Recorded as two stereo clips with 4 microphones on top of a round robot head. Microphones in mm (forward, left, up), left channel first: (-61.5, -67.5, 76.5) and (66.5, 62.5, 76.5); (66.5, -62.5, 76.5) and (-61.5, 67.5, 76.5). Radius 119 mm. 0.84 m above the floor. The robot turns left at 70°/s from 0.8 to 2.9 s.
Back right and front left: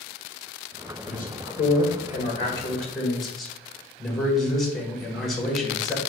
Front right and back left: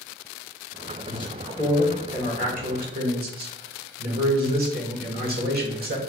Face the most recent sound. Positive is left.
turn(degrees=135)